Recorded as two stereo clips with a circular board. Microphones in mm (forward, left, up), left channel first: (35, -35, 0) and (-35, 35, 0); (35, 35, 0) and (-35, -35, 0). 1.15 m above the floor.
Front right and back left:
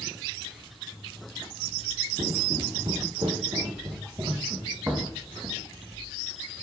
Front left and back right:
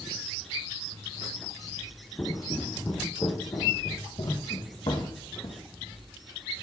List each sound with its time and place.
2.2 s footsteps: 110° left, 2 m; by 5.6 s 60° left, 3 m